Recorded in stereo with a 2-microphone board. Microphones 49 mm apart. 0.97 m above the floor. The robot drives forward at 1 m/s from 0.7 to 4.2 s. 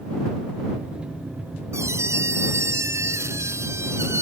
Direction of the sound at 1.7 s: 90° right.